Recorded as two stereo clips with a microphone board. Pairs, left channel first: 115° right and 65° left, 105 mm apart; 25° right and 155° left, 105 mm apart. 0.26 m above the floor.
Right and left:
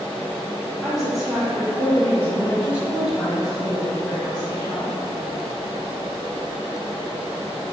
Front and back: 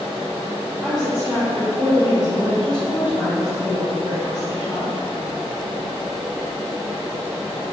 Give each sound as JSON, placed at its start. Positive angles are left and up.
{"t": 0.8, "sound": "a woman speaking", "azimuth_deg": 150, "distance_m": 1.4}